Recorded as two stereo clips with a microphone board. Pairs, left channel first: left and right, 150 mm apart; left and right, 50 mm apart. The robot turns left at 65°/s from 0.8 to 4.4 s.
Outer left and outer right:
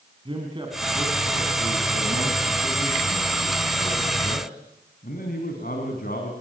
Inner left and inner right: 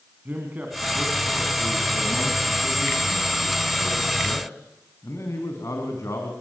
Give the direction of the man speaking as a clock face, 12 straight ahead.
1 o'clock.